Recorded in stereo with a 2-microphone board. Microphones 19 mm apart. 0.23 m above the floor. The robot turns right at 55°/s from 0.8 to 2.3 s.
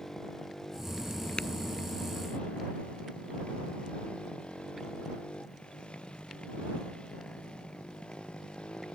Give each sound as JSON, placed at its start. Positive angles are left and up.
{"t": 0.0, "sound": "a motorcycle", "azimuth_deg": 25}
{"t": 1.4, "sound": "tapping", "side_deg": 85}